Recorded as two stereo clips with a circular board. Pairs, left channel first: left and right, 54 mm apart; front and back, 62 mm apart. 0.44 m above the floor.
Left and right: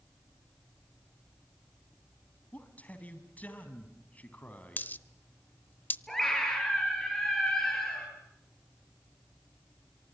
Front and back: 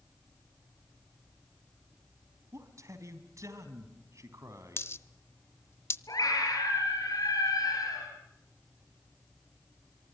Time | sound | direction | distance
2.5 | a man speaking | 150° left | 3.5 m
4.8 | a dropped coin | 40° left | 0.8 m
6.1 | a scream | 5° left | 7.5 m